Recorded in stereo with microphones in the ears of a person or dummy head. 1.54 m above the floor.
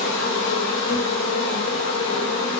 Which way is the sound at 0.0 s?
65° left (ahead or behind).